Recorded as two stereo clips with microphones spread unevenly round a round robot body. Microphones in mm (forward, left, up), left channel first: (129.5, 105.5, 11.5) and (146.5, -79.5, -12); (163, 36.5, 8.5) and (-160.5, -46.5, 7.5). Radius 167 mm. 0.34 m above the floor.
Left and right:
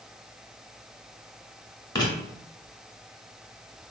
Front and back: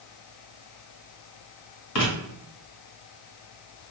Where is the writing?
25° left, 1.6 m.